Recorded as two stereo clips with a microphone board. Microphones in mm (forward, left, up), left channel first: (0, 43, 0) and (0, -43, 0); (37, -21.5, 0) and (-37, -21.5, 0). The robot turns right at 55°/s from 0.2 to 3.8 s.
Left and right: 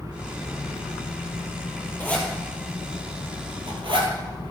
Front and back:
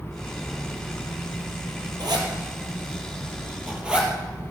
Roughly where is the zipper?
Behind.